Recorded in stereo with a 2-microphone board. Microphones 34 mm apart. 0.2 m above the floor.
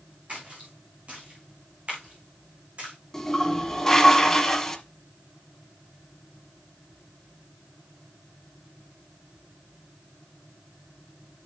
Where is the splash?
40° right (ahead or behind), 4 m.